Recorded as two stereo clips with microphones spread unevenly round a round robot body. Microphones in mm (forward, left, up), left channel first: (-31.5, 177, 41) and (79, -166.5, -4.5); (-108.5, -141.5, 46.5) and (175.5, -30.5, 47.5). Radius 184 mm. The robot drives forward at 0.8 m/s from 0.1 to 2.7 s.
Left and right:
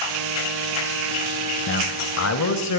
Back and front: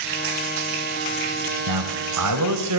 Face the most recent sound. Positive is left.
turn(degrees=60)